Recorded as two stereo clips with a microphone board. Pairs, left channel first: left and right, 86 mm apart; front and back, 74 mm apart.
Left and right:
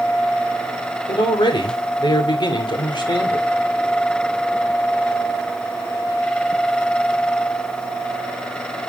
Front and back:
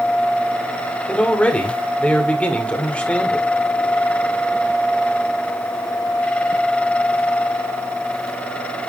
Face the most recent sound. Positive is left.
turn(degrees=70)